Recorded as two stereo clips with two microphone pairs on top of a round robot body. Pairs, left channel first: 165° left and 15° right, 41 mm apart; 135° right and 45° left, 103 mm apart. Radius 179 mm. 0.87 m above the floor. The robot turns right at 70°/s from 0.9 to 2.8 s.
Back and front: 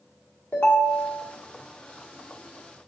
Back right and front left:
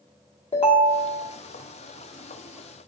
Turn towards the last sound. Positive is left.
turn(degrees=-5)